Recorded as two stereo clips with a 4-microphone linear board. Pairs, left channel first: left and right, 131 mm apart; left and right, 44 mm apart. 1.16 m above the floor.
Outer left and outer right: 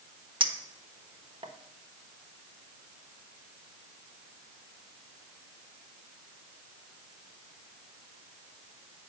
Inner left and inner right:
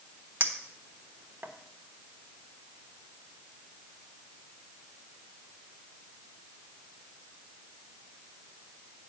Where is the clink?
40° right (ahead or behind), 1.1 m.